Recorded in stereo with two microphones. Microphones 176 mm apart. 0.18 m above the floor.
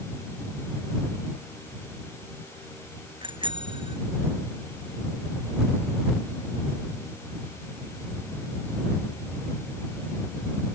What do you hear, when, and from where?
3.2 s a bicycle bell: 30° right (ahead or behind)